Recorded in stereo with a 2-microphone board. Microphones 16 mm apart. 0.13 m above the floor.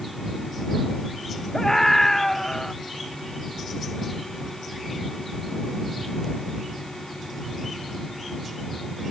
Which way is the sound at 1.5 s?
25° left (ahead or behind).